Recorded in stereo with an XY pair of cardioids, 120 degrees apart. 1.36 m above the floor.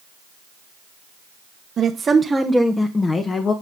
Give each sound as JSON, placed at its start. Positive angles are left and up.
{"t": 1.8, "sound": "a woman speaking", "azimuth_deg": -45, "distance_m": 1.2}